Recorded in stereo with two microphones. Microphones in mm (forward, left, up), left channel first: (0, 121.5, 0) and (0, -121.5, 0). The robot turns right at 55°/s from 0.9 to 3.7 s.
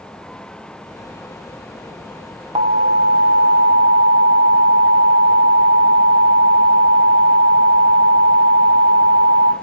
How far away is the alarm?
About 1.0 m.